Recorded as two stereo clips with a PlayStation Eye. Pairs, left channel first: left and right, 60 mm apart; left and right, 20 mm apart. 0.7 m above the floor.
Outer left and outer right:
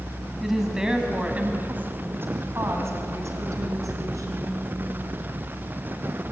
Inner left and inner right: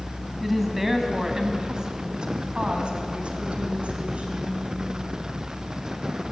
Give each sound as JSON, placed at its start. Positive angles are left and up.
{"t": 0.4, "sound": "a woman speaking", "side_deg": -5, "distance_m": 4.0}